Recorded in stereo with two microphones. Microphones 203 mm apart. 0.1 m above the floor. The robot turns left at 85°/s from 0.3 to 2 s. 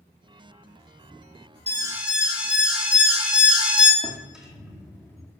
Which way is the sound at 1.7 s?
30° right (ahead or behind).